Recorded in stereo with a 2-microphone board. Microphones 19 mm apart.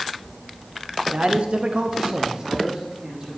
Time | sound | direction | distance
1.1 | a man speaking | 65° right (ahead or behind) | 0.9 m